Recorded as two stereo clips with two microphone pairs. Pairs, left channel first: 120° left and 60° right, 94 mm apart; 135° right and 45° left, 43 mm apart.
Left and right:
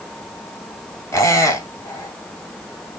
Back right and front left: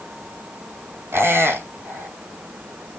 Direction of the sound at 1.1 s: 60° left.